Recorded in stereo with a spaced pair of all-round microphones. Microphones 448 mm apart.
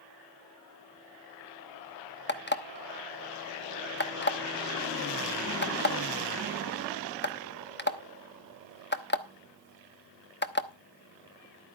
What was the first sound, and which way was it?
An alarm clock, 25° left (ahead or behind).